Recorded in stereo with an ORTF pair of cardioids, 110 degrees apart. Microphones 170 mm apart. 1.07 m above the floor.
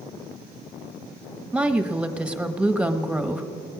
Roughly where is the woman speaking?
Ahead.